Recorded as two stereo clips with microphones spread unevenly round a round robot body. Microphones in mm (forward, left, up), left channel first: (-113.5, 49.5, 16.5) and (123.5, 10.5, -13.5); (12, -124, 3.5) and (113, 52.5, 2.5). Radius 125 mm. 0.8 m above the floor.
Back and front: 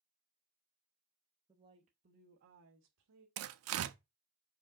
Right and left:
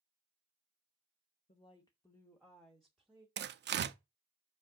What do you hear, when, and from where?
1.5 s a woman speaking: 75° right, 0.8 m; by 3.3 s 25° right, 1.4 m
3.4 s tearing paper: 20° left, 0.6 m